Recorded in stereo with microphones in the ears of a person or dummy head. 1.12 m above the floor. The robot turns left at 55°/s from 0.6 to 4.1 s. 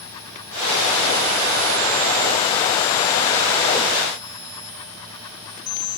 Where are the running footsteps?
No running footsteps in this recording.